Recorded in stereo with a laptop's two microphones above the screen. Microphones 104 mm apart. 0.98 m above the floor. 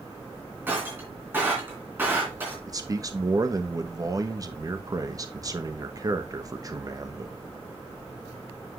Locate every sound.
0.7 s breaking glass: 20° right (ahead or behind), 3 m
2.7 s a man speaking: 35° right (ahead or behind), 1.1 m